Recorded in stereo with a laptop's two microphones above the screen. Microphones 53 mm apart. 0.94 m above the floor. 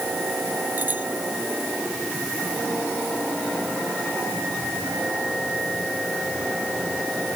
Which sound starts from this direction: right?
A bicycle bell, at 0.8 s.